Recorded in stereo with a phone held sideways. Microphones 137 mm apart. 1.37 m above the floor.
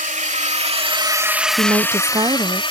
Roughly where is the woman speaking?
Right.